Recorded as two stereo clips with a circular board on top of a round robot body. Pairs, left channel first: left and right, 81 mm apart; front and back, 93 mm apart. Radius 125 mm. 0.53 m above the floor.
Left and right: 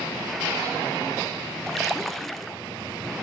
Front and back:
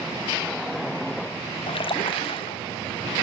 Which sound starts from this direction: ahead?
A splash, at 1.7 s.